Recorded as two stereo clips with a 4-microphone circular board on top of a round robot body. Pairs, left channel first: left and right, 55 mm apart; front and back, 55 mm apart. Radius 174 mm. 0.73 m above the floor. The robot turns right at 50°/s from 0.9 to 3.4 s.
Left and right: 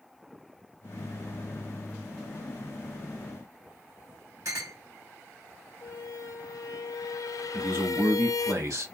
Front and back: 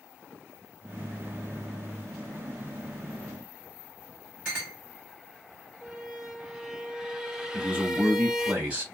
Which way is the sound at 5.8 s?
100° left.